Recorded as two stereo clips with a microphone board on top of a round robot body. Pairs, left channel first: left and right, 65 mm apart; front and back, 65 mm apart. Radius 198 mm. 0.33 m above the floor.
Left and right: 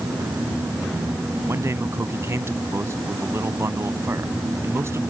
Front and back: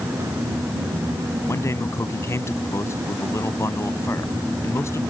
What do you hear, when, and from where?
1.5 s a man speaking: 45° right